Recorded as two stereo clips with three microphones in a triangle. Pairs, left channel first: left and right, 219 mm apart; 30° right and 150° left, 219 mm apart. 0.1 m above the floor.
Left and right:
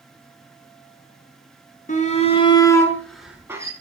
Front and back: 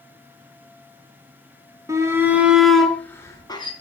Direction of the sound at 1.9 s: 85° left.